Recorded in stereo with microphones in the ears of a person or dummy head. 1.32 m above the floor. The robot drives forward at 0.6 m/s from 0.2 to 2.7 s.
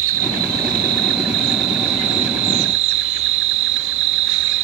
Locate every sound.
0.0 s an insect: 50° right (ahead or behind); by 4.7 s 70° right (ahead or behind)